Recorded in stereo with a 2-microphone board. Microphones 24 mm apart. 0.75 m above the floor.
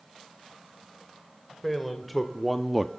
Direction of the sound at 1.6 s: Centre (ahead or behind).